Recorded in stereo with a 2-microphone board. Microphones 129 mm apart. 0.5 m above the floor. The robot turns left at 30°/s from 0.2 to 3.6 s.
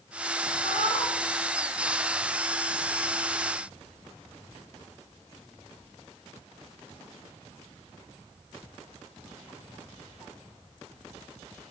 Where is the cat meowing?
40° left (ahead or behind), 1.1 m; by 1.2 s 55° left (ahead or behind), 1.1 m.